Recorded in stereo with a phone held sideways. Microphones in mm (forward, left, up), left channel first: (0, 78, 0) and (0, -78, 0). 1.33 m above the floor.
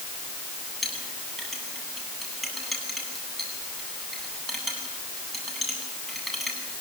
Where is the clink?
Centre (ahead or behind), 9.5 m.